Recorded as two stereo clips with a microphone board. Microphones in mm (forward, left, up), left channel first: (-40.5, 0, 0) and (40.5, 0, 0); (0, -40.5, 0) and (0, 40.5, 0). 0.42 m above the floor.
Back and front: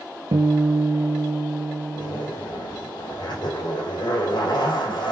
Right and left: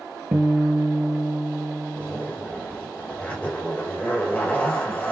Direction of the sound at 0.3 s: 20° left.